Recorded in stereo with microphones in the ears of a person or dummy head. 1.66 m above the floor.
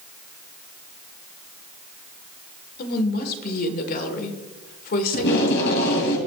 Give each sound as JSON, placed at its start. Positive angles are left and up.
{"t": 2.8, "sound": "a woman speaking", "side_deg": 55, "distance_m": 1.6}
{"t": 5.1, "sound": "tape being pulled", "side_deg": 70, "distance_m": 3.0}